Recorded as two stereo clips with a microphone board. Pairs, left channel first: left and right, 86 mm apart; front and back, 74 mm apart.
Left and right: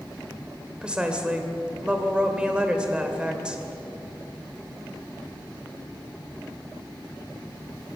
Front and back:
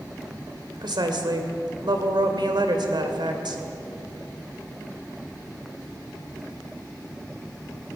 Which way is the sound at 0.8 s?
170° right.